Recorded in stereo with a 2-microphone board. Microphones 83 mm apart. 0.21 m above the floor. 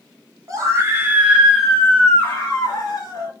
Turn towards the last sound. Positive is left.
turn(degrees=45)  # may be behind; listen again after turning